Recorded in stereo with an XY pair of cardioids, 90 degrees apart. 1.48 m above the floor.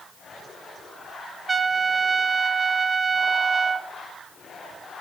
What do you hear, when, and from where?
1.5 s a trumpet: 25° right, 0.6 m